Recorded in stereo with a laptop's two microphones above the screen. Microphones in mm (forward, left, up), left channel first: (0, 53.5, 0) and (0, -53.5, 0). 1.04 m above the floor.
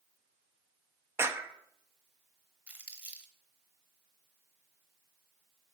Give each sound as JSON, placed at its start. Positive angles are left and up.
{"t": 1.2, "sound": "a clap", "side_deg": -25, "distance_m": 0.7}
{"t": 2.7, "sound": "crumpling", "side_deg": -15, "distance_m": 1.0}